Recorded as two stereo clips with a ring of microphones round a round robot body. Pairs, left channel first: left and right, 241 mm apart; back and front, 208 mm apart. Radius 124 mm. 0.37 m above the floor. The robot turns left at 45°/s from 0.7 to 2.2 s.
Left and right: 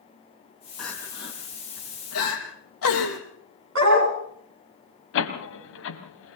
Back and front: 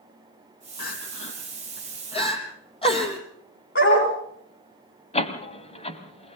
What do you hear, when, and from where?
0.8 s crying: straight behind, 3 m; by 3.2 s 115° left, 3 m
3.8 s a dog barking: 130° right, 5 m
5.1 s a door slam: 120° left, 1.9 m